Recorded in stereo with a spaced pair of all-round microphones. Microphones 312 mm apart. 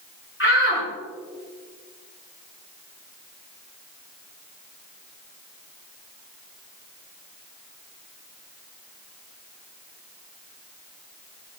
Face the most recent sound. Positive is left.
turn(degrees=40)  # may be behind; listen again after turning